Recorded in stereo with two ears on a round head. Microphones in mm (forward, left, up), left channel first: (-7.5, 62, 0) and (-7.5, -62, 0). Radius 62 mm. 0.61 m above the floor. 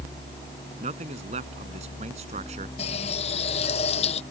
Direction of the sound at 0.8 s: 50° right (ahead or behind).